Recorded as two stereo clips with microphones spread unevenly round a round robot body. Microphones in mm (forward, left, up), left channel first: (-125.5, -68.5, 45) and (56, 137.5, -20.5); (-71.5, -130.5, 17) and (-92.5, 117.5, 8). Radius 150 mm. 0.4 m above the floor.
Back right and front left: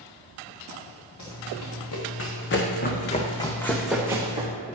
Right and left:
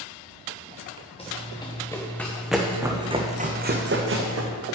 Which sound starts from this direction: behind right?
Running footsteps, at 1.2 s.